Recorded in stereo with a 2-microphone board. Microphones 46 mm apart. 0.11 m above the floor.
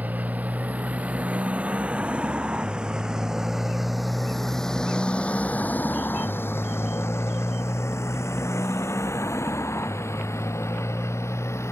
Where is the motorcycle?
35° right (ahead or behind); by 11.7 s 75° left (ahead or behind).